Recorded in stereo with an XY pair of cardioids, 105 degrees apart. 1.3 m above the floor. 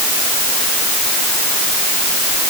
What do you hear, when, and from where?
Only background noise.